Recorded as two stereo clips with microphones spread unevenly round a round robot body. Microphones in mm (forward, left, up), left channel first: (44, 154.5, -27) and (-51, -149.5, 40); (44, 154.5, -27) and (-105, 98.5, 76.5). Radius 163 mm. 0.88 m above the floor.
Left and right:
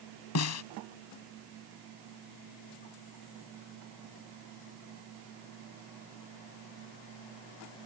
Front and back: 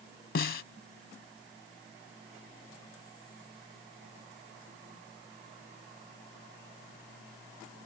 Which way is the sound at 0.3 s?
30° left.